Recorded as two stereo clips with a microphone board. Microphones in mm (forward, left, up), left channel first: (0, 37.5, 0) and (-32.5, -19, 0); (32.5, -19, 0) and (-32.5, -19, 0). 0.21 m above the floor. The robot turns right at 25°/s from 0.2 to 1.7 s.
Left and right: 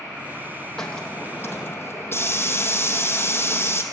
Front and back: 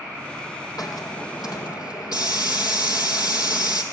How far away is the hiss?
About 3 m.